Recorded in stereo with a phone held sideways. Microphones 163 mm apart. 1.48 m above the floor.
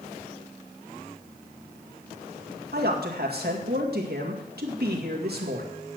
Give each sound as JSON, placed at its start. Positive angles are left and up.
{"t": 2.7, "sound": "a man speaking", "side_deg": -75, "distance_m": 2.0}